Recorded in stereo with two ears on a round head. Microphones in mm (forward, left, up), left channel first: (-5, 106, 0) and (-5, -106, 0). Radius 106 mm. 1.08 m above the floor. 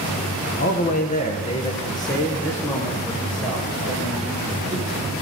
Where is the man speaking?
40° left (ahead or behind), 0.9 m; by 5.1 s 5° right (ahead or behind), 2.5 m.